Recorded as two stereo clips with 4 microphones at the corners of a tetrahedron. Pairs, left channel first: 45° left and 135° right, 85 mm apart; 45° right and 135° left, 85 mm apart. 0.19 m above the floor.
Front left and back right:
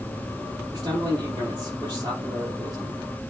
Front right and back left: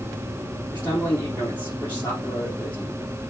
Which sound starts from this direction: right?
A man speaking, at 0.7 s.